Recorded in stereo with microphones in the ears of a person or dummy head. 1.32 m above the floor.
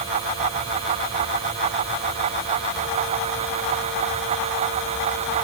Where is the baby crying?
No baby crying in this recording.